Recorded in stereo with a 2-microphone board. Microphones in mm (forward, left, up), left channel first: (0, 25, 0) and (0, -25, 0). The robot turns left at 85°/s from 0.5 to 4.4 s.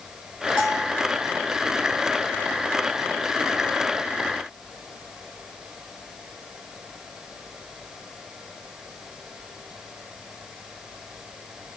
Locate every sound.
0.6 s a bell: 15° right (ahead or behind), 1.7 m; by 1.0 s 20° right (ahead or behind), 1.7 m